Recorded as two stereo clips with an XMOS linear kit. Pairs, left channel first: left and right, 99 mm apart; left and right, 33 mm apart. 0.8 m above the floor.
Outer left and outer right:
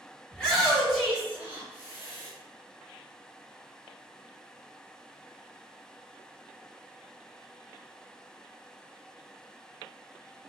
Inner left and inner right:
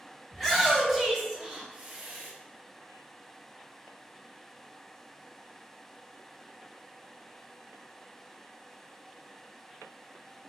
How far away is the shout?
About 1.3 m.